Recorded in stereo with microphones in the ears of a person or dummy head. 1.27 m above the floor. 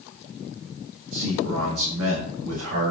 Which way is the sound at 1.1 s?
85° right.